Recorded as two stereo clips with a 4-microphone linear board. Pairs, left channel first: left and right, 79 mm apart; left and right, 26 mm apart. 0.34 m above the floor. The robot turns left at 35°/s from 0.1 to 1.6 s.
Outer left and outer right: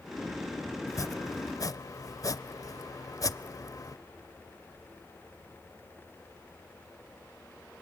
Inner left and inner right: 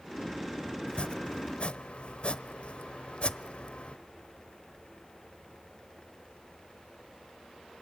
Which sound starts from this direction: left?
Chopping, at 0.9 s.